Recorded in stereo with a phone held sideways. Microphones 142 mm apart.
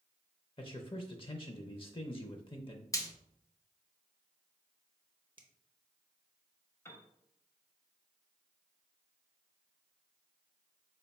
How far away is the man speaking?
About 0.5 m.